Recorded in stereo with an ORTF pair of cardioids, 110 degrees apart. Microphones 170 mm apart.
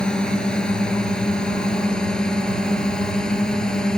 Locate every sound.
0.0 s a drone: 5° left